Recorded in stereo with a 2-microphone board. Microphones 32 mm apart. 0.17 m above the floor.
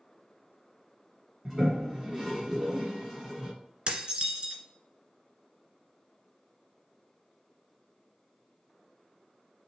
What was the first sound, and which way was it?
A toilet flushing, centre (ahead or behind).